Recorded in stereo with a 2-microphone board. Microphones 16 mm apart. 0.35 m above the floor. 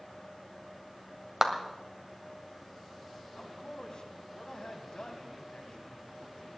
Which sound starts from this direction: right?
A clap, at 1.4 s.